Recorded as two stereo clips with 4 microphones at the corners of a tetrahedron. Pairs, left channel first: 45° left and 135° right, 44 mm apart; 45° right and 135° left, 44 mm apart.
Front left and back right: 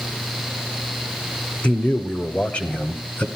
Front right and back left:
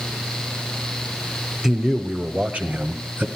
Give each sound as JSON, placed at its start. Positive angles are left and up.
{"t": 1.6, "sound": "a man speaking", "azimuth_deg": 55, "distance_m": 1.3}